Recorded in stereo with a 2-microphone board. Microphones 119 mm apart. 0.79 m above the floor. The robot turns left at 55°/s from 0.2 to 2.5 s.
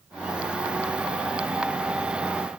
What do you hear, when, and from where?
Only background noise.